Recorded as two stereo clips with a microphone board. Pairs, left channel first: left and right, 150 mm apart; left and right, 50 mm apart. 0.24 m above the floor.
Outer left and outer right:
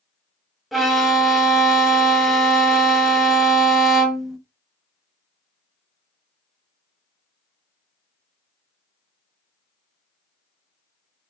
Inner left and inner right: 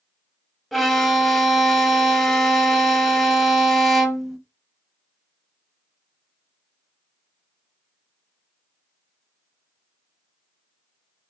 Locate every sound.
0.7 s a violin: centre (ahead or behind), 0.8 m